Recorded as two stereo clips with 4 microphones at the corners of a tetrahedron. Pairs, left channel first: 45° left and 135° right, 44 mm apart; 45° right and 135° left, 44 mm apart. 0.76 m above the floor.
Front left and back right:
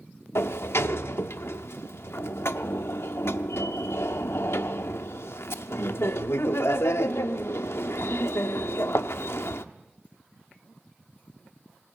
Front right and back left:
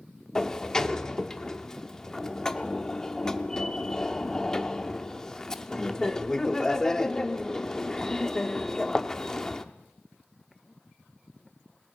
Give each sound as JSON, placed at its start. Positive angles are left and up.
{"t": 0.3, "sound": "a sliding door", "azimuth_deg": 30, "distance_m": 0.7}